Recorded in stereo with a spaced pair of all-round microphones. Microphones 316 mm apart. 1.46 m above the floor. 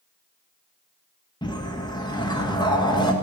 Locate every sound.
1.4 s a whoosh: 15° left (ahead or behind), 1.7 m